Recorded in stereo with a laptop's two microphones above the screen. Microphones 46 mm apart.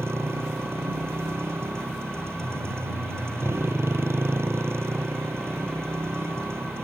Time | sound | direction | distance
0.0 | a motorcycle | 65° right (ahead or behind) | ?